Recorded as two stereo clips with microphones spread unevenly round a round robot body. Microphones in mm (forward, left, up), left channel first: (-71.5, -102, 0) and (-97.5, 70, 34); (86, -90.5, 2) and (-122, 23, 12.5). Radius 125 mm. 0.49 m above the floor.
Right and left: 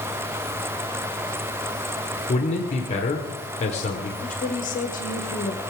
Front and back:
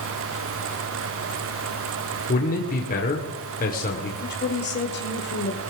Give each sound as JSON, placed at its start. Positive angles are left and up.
{"t": 2.3, "sound": "a man speaking", "azimuth_deg": -65, "distance_m": 1.7}
{"t": 4.2, "sound": "a woman speaking", "azimuth_deg": -60, "distance_m": 1.7}